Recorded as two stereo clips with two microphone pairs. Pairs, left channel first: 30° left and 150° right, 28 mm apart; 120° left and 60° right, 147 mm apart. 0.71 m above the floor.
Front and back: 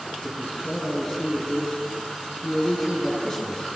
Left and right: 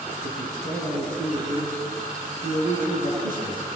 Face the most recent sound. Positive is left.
turn(degrees=-40)